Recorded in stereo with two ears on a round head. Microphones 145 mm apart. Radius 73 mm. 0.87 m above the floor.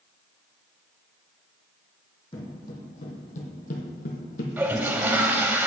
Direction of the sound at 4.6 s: 10° right (ahead or behind).